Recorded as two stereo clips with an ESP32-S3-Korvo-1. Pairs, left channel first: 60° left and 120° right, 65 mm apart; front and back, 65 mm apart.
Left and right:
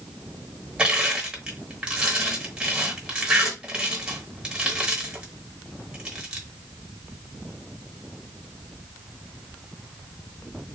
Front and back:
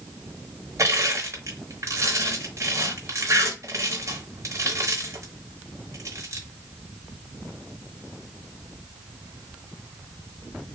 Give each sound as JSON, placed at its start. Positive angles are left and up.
{"t": 0.8, "sound": "crushing", "azimuth_deg": 170, "distance_m": 1.4}